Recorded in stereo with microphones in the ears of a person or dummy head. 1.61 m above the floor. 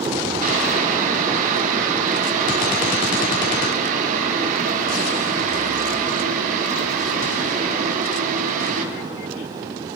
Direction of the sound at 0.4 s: 50° right (ahead or behind).